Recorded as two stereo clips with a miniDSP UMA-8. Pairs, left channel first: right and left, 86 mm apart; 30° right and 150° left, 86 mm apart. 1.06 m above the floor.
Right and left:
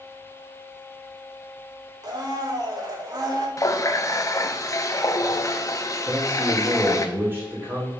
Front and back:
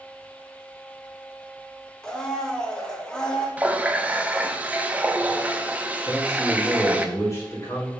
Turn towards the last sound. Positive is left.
turn(degrees=25)